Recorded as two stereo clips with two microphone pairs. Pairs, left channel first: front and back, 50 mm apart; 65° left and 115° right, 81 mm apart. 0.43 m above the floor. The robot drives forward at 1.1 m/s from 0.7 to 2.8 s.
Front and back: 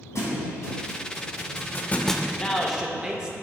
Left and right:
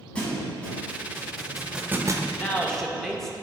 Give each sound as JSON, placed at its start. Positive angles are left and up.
{"t": 0.1, "sound": "a thud", "azimuth_deg": -10, "distance_m": 1.7}
{"t": 2.3, "sound": "a man speaking", "azimuth_deg": 30, "distance_m": 0.8}